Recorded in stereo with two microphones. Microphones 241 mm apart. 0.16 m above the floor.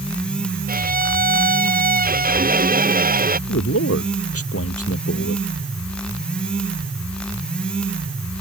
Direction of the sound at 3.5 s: 75° left (ahead or behind).